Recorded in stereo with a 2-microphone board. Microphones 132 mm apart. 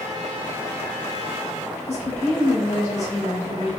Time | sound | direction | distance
1.9 | a woman speaking | 60° left (ahead or behind) | 1.5 m